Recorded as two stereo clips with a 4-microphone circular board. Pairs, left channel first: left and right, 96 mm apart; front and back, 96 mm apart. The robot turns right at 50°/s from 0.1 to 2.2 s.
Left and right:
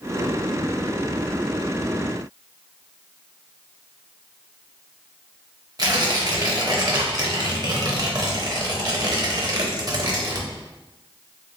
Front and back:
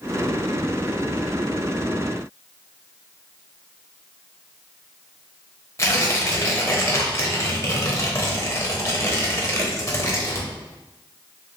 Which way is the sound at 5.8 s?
55° right.